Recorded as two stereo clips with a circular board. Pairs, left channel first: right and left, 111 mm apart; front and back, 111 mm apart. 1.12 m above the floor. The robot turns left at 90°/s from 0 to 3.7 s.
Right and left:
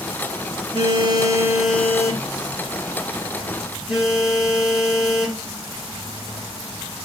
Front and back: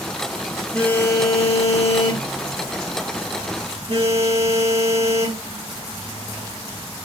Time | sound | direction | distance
0.7 | a phone buzzing | 85° left | 1.2 m